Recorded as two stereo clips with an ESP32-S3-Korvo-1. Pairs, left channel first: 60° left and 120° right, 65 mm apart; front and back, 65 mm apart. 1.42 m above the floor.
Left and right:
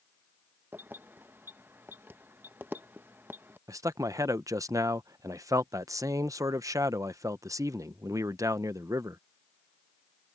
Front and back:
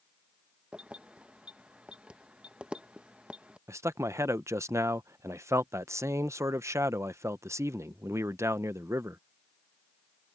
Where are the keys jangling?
120° right.